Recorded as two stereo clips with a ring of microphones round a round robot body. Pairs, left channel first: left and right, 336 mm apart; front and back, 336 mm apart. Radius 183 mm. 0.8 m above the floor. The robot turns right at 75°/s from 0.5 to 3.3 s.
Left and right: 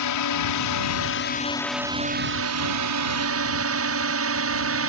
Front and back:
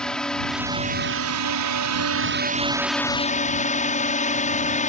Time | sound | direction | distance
0.0 | a drone | 90° left | ?